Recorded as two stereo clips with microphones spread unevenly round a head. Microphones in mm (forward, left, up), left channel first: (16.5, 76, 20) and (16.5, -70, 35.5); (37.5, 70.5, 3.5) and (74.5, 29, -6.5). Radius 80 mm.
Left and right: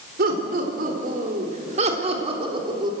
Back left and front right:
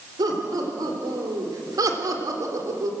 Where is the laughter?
70° right, 4 m; by 2.9 s 25° right, 3.5 m.